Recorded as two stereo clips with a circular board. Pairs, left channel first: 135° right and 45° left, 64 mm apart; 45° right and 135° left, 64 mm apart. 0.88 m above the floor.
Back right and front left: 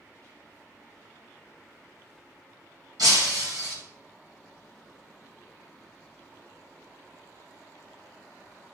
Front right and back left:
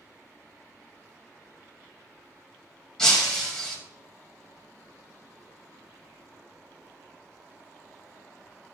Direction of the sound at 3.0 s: 35° left.